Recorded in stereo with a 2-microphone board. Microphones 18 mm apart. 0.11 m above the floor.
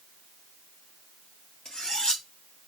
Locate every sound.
1.6 s cutlery clinking: 50° left (ahead or behind), 1.5 m